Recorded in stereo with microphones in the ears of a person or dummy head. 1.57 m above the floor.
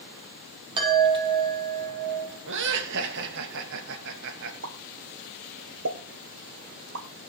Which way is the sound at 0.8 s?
25° right (ahead or behind).